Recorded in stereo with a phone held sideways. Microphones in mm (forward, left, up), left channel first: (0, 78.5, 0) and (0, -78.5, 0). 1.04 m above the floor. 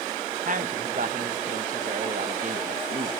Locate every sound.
0.5 s a man speaking: 60° right (ahead or behind), 0.8 m